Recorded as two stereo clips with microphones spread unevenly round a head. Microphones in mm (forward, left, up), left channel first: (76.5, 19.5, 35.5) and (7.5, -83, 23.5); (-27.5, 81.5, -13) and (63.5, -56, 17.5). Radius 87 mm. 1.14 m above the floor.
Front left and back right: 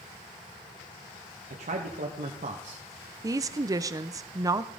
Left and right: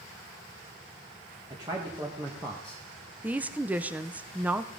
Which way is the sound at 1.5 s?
130° right.